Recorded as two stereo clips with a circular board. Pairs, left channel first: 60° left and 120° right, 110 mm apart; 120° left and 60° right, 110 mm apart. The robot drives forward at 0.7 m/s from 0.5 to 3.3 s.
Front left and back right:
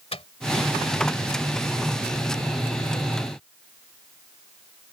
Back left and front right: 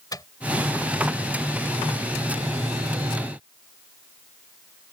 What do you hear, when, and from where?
0.1 s a microwave: 70° left